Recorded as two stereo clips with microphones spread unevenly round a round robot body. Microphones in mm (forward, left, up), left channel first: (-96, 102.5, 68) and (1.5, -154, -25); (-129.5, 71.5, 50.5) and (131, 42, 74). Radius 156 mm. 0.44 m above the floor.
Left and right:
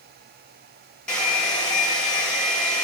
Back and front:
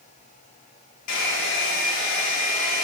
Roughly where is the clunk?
No clunk in this recording.